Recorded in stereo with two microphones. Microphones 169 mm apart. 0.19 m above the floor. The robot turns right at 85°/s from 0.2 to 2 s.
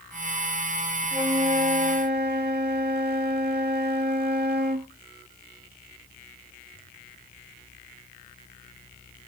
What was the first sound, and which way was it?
A flute, 165° right.